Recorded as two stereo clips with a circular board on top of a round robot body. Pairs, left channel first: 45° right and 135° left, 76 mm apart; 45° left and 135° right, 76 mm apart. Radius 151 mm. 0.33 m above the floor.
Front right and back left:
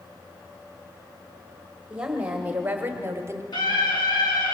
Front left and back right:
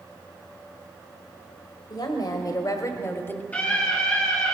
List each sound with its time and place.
1.9 s a woman speaking: 60° left, 2.5 m; by 3.4 s 100° left, 1.3 m
3.5 s a scream: 25° right, 6 m